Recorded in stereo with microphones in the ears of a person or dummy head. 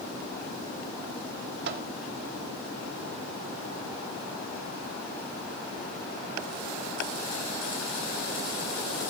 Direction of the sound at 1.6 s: 60° right (ahead or behind).